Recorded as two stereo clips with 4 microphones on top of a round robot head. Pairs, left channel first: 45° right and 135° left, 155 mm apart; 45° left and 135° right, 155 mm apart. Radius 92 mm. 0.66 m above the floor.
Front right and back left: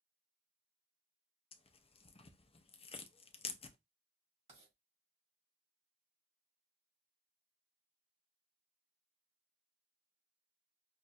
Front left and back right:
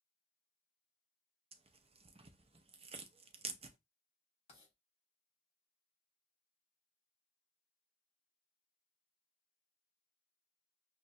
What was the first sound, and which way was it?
Tearing paper, 90° right.